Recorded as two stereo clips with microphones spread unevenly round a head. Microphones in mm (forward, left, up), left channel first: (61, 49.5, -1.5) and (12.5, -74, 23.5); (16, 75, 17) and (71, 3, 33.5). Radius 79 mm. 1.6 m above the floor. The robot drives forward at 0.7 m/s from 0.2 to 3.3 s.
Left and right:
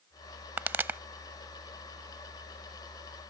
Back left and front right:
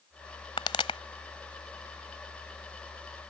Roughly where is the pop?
Behind.